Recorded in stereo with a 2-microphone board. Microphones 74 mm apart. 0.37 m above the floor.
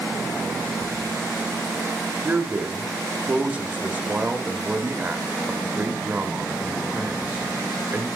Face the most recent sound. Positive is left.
turn(degrees=-20)  # may be behind; listen again after turning